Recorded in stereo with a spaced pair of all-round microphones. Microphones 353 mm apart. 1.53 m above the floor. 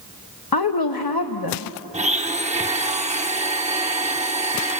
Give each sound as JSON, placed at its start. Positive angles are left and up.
{"t": 0.5, "sound": "a woman speaking", "side_deg": 80, "distance_m": 0.9}
{"t": 1.9, "sound": "a blender", "side_deg": -20, "distance_m": 0.8}